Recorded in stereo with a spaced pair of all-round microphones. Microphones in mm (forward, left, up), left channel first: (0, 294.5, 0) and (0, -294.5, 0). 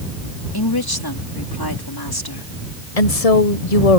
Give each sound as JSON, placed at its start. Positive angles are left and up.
{"t": 0.5, "sound": "a woman speaking", "side_deg": 40}
{"t": 3.0, "sound": "a woman speaking", "side_deg": 75}